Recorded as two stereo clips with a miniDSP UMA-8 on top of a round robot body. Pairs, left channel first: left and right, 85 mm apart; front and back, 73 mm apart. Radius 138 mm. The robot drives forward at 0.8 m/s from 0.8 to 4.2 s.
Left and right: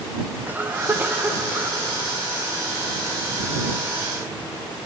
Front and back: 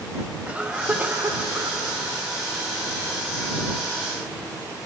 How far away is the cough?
About 1.3 m.